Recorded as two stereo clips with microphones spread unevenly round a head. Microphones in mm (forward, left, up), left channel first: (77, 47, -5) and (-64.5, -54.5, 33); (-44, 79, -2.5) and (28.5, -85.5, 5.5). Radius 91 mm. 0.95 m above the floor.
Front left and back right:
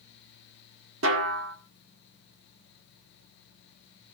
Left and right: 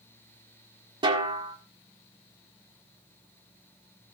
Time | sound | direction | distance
1.0 | a snare drum | 130° right | 1.8 m